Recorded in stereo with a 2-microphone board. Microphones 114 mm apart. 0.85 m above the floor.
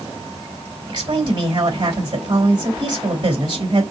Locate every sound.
0.9 s a woman speaking: 45° right (ahead or behind), 3.5 m